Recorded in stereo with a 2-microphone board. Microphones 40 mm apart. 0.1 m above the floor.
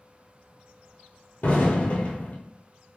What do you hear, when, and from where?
1.4 s an explosion: 50° left (ahead or behind), 1.0 m